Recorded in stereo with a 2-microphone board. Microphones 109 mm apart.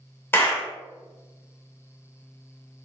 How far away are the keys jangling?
I don't hear keys jangling.